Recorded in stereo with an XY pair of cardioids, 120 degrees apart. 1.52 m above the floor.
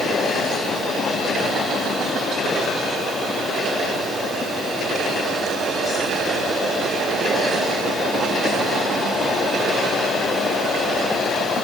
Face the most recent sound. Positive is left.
No sound to turn to.